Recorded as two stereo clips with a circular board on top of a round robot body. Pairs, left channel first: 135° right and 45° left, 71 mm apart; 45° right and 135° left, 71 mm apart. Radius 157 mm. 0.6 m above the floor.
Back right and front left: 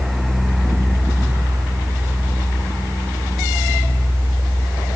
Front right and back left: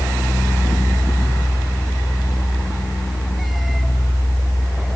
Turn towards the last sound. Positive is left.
No sound to turn to.